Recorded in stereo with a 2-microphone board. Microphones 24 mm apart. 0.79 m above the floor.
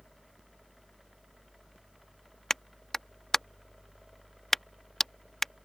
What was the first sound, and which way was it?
A clap, 15° left (ahead or behind).